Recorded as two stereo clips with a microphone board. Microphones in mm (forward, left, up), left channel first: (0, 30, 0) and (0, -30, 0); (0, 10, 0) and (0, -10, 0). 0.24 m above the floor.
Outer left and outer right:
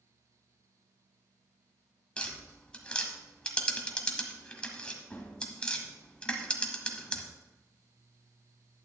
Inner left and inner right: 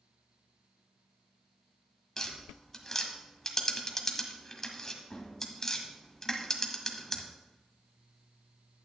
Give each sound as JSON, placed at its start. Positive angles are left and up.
{"t": 2.2, "sound": "tapping", "side_deg": 20, "distance_m": 1.3}